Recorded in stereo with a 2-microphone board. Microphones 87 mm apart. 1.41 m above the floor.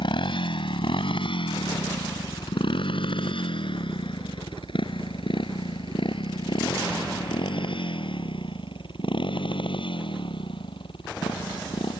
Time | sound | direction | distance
0.0 | a motorcycle | 75° left (ahead or behind) | ?